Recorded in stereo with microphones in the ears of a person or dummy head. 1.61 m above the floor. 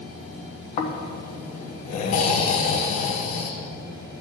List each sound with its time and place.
0.8 s snoring: 45° left (ahead or behind), 1.0 m